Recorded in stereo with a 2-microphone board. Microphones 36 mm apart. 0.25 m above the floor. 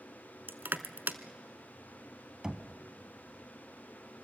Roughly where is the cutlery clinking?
I don't hear cutlery clinking.